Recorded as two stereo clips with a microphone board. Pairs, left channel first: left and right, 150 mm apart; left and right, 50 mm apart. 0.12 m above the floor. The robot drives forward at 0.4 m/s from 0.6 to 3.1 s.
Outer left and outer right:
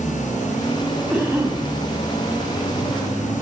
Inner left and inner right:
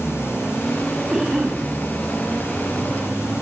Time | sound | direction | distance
1.1 | a cough | 15° right (ahead or behind) | 8 m